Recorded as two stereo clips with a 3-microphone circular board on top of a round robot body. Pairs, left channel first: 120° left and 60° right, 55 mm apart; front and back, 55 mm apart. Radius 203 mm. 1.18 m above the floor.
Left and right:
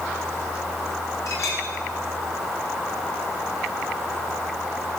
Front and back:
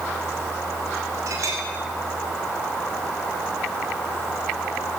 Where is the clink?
150° left, 5 m.